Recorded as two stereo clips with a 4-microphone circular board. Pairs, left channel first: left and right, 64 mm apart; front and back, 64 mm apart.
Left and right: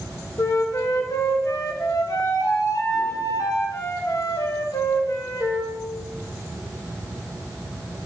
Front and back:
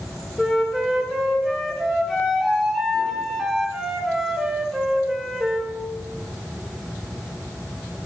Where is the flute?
90° left, 1.4 m.